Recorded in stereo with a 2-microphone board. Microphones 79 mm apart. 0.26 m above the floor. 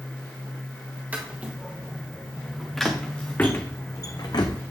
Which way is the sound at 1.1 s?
20° right (ahead or behind).